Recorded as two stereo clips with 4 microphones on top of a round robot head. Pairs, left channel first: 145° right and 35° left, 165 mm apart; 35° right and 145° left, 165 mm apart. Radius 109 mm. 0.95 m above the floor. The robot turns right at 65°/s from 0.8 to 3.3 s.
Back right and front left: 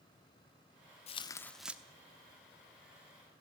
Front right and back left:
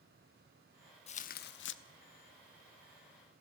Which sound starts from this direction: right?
Tearing paper, at 1.1 s.